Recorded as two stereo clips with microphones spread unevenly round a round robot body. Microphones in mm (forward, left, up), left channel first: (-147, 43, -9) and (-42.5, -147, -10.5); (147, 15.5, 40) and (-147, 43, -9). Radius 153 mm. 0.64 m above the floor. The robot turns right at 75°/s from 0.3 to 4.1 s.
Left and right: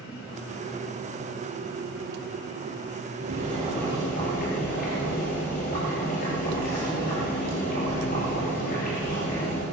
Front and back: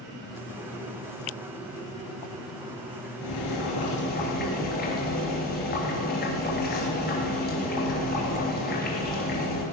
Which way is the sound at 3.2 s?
15° right.